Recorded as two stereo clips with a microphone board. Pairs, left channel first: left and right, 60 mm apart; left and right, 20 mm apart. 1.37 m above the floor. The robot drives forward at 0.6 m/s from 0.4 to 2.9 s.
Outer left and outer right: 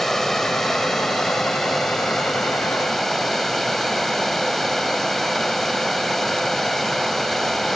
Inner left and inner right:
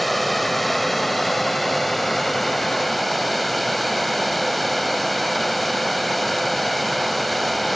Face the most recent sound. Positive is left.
turn(degrees=5)  # may be behind; listen again after turning